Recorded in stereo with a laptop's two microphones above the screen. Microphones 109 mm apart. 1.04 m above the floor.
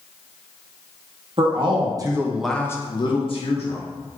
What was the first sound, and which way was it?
A man speaking, 55° right (ahead or behind).